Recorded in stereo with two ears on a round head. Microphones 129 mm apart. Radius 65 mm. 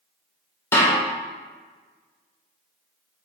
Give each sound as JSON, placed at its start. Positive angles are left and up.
{"t": 0.7, "sound": "a snare drum", "side_deg": 20, "distance_m": 3.0}